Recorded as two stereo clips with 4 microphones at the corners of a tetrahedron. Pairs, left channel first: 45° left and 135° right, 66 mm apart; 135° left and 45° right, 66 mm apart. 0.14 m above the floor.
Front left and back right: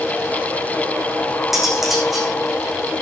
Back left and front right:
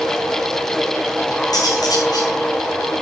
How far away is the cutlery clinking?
About 6 m.